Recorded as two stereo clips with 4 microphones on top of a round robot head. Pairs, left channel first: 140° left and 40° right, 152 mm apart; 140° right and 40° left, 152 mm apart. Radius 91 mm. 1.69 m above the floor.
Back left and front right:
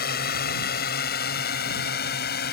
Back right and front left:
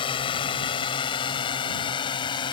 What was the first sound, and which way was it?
A drone, 165° left.